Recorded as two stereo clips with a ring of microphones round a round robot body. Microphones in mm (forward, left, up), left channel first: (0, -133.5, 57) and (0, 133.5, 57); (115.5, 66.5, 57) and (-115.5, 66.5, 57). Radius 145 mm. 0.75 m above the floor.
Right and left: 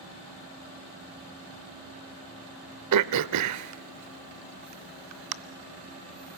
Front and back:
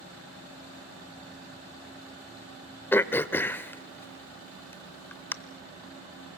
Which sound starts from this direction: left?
Throat clearing, at 2.9 s.